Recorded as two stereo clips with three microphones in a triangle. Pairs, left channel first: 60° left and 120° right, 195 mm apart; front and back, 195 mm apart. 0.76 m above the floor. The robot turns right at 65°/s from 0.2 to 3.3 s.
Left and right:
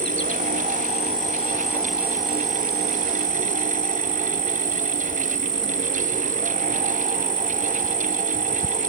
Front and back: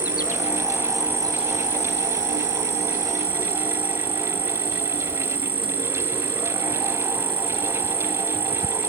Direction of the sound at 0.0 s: 40° left.